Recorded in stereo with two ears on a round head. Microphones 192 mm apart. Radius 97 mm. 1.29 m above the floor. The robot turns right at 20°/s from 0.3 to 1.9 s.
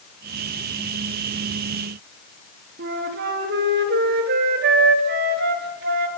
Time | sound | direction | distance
2.8 | a flute | 45° right (ahead or behind) | 3 m